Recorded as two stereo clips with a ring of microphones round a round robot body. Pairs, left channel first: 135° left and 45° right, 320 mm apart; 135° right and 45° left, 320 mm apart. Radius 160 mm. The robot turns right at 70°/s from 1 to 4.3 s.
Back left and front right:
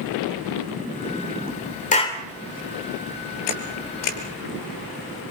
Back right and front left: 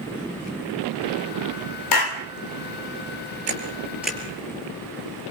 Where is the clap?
160° right, 2.5 m; by 2.2 s 135° right, 2.5 m.